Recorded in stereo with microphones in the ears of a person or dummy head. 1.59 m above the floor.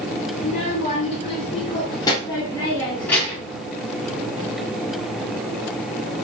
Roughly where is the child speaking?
Left.